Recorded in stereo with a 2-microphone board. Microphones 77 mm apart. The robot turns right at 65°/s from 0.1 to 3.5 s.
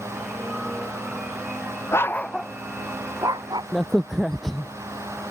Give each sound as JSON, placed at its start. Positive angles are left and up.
{"t": 1.9, "sound": "a dog barking", "side_deg": 35}
{"t": 3.7, "sound": "a crack", "side_deg": 5}